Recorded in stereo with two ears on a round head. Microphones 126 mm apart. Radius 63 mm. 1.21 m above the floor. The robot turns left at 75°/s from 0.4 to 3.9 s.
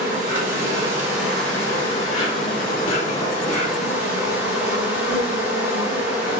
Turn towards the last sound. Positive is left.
turn(degrees=-10)